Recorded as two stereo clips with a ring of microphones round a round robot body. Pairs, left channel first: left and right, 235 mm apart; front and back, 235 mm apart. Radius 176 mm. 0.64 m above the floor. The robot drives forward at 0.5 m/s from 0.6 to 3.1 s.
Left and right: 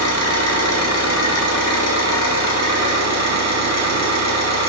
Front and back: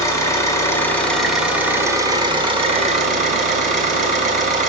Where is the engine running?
80° left, 1.7 m; by 4.7 s 120° left, 1.9 m.